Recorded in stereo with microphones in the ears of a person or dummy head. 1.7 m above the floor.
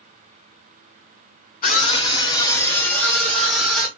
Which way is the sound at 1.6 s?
40° left (ahead or behind).